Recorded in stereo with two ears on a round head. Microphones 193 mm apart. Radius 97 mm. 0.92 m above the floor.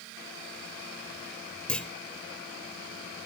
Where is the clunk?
5° left (ahead or behind), 0.6 m.